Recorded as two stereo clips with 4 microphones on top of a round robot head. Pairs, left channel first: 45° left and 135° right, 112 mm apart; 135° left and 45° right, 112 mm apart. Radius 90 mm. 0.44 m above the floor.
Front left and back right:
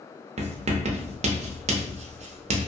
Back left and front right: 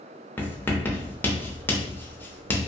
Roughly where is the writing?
Behind right.